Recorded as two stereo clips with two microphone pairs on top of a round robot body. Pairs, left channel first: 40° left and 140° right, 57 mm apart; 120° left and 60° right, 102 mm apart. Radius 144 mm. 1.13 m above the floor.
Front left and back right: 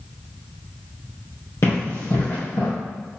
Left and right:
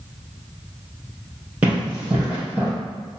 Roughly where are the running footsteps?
Ahead.